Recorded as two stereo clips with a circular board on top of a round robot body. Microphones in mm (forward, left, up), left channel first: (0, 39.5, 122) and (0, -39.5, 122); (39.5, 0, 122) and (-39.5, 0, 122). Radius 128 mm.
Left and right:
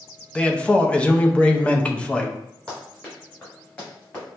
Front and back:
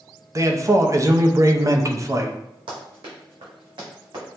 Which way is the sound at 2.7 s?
170° left.